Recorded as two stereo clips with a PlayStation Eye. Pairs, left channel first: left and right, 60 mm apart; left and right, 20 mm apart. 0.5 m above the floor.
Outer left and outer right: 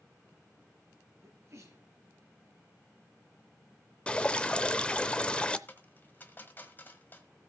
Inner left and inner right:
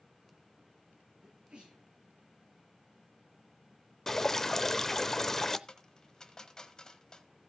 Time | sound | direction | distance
1.2 | a sneeze | 50° right (ahead or behind) | 8 m
4.1 | dripping | 15° left (ahead or behind) | 0.6 m
5.7 | a dropped coin | 30° left (ahead or behind) | 1.4 m